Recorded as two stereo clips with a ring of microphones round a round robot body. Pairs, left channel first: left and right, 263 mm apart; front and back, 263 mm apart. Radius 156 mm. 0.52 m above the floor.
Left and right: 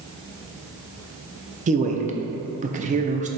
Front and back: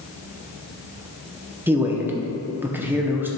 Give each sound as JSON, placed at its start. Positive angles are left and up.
{"t": 1.7, "sound": "a man speaking", "azimuth_deg": -105, "distance_m": 0.7}